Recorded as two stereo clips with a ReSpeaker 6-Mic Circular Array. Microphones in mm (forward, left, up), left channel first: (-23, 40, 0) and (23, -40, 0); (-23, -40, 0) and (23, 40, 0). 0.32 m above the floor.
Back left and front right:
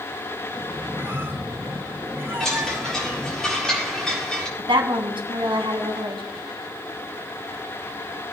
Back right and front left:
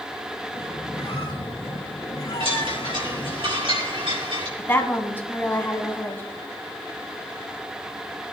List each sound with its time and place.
0.5 s a squeak: 120° right, 2.5 m
2.4 s a chime: 35° left, 6 m
4.6 s a woman speaking: 55° right, 2 m